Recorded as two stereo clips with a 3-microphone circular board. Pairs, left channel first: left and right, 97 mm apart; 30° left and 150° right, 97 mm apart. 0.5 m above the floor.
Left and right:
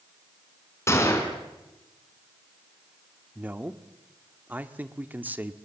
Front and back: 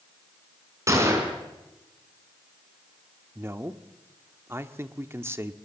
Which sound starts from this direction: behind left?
A gunshot, at 0.9 s.